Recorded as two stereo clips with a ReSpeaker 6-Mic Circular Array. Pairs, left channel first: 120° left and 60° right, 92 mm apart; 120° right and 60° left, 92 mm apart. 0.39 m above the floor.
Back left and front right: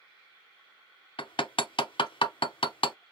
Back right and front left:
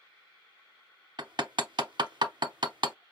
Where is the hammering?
95° left, 0.6 m.